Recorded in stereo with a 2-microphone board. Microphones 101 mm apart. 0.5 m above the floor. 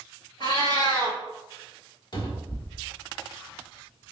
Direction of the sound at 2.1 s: 45° left (ahead or behind).